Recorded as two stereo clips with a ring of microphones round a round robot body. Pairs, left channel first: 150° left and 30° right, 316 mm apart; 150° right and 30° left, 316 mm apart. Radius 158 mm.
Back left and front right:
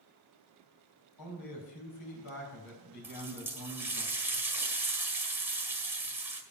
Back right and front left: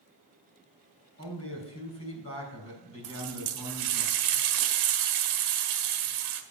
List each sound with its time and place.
1.2 s a man speaking: 165° left, 4 m
3.0 s a running tap: 55° left, 1.4 m